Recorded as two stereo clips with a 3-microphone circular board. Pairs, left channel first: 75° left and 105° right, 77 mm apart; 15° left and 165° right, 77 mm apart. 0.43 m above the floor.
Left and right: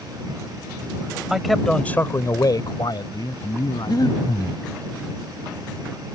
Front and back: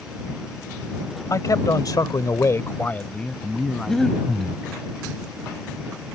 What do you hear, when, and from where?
1.3 s a man speaking: 20° right; by 4.5 s 105° left
3.9 s breathing: 100° left